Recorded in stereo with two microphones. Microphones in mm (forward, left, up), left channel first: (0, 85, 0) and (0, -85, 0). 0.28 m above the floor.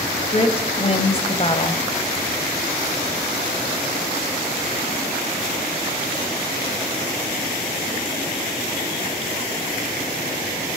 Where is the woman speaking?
35° left (ahead or behind), 1.8 m.